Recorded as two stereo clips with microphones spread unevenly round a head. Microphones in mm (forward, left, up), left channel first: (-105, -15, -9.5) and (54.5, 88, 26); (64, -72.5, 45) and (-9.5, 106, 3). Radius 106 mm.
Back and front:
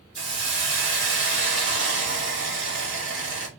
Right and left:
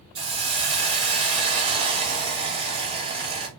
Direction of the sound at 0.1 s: 50° left.